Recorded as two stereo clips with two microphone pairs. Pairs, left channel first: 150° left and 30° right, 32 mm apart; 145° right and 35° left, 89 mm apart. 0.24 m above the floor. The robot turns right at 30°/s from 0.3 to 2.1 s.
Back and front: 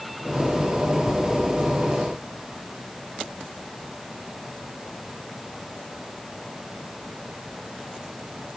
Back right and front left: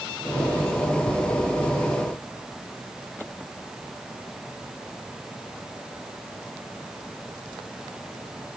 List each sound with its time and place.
Only background noise.